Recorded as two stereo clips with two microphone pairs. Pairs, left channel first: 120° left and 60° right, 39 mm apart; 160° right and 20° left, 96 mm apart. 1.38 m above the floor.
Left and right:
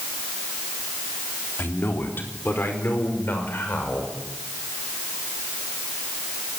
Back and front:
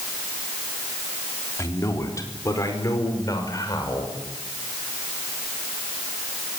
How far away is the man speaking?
About 3.5 m.